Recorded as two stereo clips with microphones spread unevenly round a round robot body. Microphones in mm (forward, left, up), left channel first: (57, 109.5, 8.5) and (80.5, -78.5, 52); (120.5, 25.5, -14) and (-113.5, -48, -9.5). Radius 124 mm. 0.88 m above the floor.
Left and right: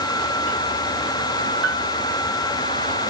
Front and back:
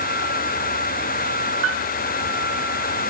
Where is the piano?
130° right.